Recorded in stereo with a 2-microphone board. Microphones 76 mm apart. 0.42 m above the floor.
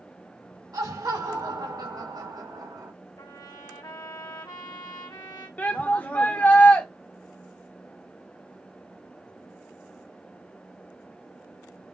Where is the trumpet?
65° left (ahead or behind), 1.4 m.